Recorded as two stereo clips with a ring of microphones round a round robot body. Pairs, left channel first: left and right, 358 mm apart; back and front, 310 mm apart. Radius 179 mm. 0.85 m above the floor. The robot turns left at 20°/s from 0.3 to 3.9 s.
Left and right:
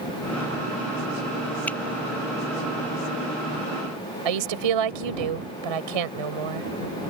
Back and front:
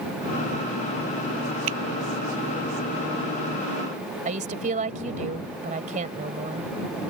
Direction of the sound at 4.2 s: 70° right.